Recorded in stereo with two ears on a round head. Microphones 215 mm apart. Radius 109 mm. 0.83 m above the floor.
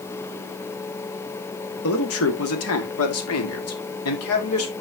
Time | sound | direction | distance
1.8 | a man speaking | 60° left (ahead or behind) | 1.9 m